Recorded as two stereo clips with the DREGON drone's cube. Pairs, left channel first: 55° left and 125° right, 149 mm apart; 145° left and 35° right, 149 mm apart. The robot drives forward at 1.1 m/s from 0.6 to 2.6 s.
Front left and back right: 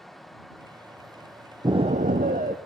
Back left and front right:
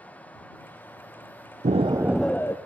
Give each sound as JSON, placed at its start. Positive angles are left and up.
{"t": 1.6, "sound": "an explosion", "azimuth_deg": -65, "distance_m": 0.6}